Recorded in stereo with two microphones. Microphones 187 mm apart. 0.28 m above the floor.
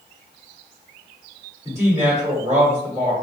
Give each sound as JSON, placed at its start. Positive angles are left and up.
{"t": 1.6, "sound": "a woman speaking", "side_deg": -15, "distance_m": 1.4}